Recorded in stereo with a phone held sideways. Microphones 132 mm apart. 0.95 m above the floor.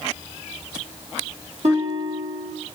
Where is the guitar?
55° right (ahead or behind), 1.8 m.